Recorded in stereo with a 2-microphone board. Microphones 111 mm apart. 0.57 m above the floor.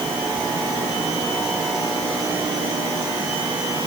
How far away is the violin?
No violin in this recording.